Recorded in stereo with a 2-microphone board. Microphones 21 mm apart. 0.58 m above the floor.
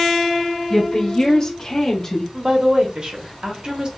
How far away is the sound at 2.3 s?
About 0.8 m.